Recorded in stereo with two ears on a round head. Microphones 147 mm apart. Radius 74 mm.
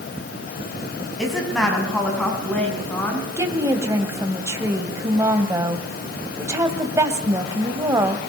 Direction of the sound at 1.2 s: Centre (ahead or behind).